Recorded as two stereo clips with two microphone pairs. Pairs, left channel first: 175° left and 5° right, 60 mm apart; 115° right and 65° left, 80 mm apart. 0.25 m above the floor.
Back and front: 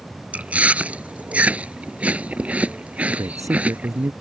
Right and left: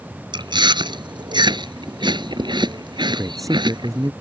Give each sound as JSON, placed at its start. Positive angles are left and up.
{"t": 0.3, "sound": "chewing", "azimuth_deg": 65}
{"t": 3.1, "sound": "a man speaking", "azimuth_deg": 20}